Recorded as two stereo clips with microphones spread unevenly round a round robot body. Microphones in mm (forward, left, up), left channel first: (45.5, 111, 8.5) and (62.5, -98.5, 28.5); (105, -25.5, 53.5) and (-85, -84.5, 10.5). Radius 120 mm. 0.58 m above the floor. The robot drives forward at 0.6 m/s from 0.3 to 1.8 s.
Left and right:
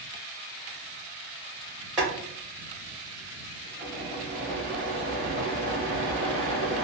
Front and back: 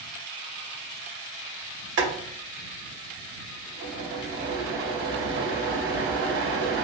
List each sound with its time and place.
2.0 s boiling: 170° right, 2.0 m